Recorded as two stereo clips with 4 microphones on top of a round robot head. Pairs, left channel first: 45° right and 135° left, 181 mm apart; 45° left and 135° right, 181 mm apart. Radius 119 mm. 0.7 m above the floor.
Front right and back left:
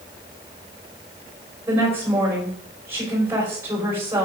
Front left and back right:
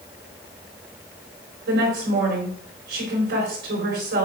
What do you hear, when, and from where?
1.7 s a woman speaking: 150° right, 4 m